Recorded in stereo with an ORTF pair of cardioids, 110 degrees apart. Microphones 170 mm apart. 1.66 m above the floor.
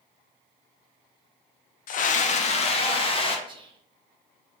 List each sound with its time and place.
1.9 s a scream: 55° left, 0.7 m; by 3.4 s 30° left, 1.6 m
3.5 s whispering: 30° right, 1.0 m